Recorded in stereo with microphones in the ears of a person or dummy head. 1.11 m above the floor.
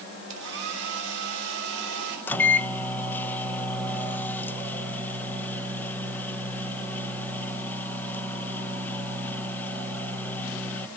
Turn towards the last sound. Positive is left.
turn(degrees=10)  # may be behind; listen again after turning